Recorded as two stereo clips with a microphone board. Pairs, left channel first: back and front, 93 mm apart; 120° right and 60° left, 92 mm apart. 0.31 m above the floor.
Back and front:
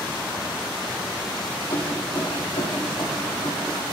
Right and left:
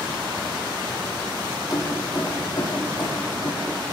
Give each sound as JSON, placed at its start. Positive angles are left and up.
{"t": 1.7, "sound": "keys jangling", "azimuth_deg": -165, "distance_m": 7.5}